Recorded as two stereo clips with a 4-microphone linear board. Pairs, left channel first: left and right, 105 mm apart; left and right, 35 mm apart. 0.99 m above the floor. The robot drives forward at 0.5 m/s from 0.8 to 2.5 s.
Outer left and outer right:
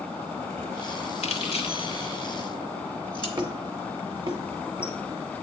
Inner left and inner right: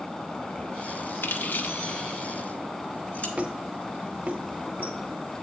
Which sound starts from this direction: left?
Keys jangling, at 1.2 s.